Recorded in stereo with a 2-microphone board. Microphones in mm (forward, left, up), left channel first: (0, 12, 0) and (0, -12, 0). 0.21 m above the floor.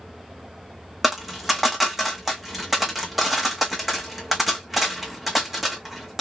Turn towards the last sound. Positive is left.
turn(degrees=-10)  # may be behind; listen again after turning